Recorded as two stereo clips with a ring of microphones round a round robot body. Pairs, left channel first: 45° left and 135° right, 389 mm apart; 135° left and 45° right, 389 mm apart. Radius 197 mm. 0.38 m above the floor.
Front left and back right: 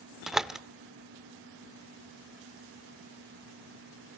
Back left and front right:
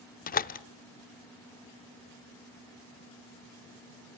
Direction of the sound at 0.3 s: 140° left.